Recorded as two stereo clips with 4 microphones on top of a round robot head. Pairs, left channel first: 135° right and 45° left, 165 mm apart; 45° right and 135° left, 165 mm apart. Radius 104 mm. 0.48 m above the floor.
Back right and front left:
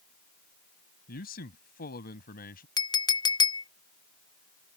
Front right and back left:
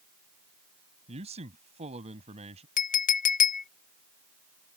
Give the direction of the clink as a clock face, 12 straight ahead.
2 o'clock.